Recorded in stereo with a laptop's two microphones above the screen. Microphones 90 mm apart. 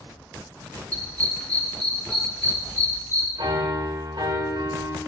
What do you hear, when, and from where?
0.9 s a dog barking: 15° left (ahead or behind), 4.5 m; by 3.3 s 30° left (ahead or behind), 3 m
3.4 s a piano: 65° right (ahead or behind), 2 m